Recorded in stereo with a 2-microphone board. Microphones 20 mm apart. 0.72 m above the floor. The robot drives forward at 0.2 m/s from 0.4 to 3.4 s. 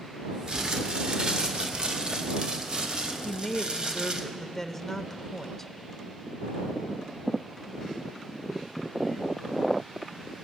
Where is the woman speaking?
15° left (ahead or behind), 0.7 m.